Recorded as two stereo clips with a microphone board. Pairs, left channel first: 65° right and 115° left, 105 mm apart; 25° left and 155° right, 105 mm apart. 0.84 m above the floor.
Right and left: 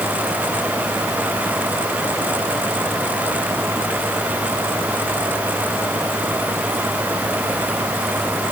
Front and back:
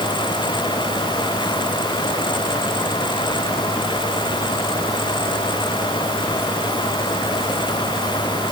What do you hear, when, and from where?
Only background noise.